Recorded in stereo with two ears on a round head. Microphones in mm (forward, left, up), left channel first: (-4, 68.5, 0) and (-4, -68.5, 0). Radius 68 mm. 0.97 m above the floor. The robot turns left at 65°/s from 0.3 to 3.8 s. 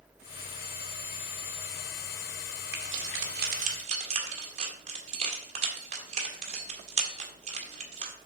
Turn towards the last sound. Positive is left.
turn(degrees=-45)  # may be behind; listen again after turning